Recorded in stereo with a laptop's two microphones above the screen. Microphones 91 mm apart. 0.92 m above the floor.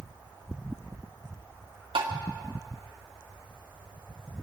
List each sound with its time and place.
1.9 s tapping: 75° right (ahead or behind), 1.6 m